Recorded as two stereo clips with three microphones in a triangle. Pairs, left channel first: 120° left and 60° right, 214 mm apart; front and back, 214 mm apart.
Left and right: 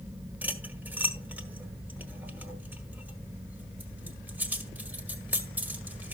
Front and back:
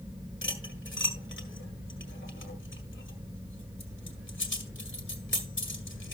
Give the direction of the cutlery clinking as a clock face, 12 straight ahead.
11 o'clock.